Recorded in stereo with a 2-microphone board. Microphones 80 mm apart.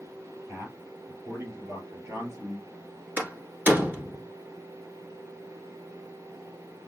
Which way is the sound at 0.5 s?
30° right (ahead or behind).